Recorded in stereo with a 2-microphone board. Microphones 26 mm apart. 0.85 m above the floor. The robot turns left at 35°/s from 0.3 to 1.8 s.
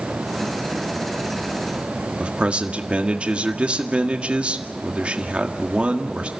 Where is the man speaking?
40° right (ahead or behind), 1.8 m.